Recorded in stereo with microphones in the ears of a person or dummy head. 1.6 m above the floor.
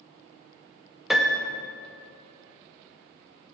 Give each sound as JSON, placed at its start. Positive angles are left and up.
{"t": 1.1, "sound": "a piano", "side_deg": 0, "distance_m": 0.7}